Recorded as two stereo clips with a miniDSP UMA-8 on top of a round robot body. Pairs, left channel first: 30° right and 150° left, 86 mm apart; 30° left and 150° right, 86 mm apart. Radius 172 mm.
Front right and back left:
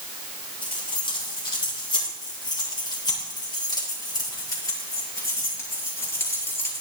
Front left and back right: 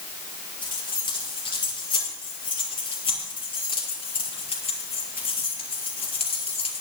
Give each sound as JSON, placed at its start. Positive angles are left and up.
{"t": 0.6, "sound": "keys jangling", "azimuth_deg": 0, "distance_m": 7.5}